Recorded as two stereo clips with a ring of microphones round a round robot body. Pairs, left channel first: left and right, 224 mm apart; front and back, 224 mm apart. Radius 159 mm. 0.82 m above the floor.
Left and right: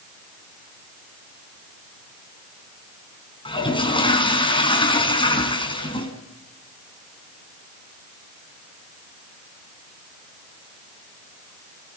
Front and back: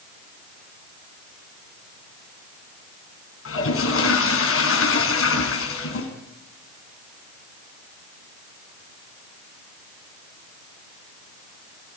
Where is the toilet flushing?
20° left, 4.5 m.